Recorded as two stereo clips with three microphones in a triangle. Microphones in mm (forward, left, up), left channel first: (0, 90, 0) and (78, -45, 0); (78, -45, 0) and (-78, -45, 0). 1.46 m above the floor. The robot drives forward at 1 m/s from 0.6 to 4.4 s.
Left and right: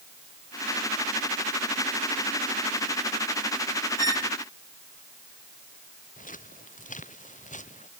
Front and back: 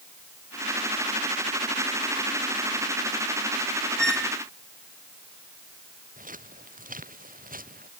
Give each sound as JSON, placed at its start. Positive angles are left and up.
{"t": 4.0, "sound": "a squeak", "azimuth_deg": 85}
{"t": 6.2, "sound": "footsteps", "azimuth_deg": 150}